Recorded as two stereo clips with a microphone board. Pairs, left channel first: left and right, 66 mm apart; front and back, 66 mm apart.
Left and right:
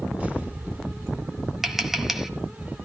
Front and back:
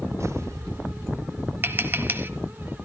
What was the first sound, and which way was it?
An explosion, 155° right.